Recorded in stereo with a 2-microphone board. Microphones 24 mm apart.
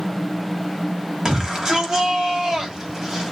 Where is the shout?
30° right (ahead or behind), 2.5 m.